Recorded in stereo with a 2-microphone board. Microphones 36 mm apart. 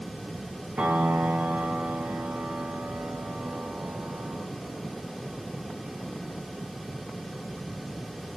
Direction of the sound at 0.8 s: 55° right (ahead or behind).